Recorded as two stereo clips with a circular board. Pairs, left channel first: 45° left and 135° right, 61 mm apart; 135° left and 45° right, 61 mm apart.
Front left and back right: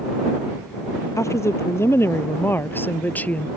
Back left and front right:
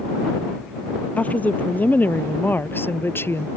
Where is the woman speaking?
75° left; by 3.5 s 105° left.